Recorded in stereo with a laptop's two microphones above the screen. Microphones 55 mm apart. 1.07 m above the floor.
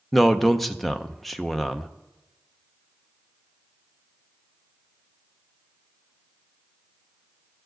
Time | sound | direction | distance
0.1 | a man speaking | 5° left (ahead or behind) | 0.5 m